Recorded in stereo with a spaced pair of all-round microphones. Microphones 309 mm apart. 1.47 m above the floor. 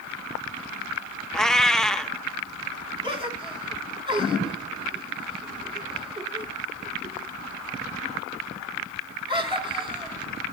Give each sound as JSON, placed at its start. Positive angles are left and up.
{"t": 1.3, "sound": "a cat meowing", "side_deg": 0, "distance_m": 0.7}
{"t": 3.0, "sound": "a gasp", "side_deg": -15, "distance_m": 2.5}